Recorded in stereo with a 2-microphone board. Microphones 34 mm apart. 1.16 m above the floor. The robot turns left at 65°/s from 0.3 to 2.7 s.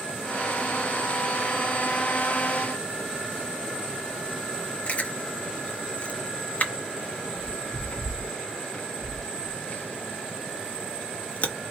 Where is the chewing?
45° left (ahead or behind), 0.8 m.